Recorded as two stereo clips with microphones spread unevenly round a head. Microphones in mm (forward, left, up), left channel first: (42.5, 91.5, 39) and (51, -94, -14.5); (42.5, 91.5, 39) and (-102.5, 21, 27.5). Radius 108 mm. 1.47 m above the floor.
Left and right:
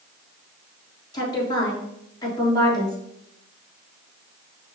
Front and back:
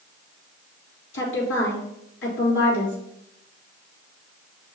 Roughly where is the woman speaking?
Ahead left.